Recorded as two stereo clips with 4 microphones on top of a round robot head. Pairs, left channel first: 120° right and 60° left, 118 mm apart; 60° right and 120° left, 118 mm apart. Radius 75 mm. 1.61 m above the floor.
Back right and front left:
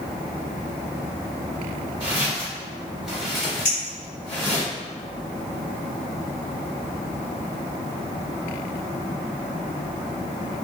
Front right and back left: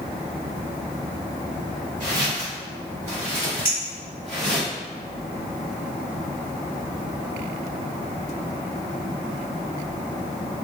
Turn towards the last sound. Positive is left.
turn(degrees=-175)